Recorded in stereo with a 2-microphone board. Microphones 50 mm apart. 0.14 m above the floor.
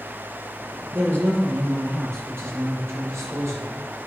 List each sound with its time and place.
0.9 s a man speaking: 55° right (ahead or behind), 2.5 m; by 3.7 s 70° right (ahead or behind), 5 m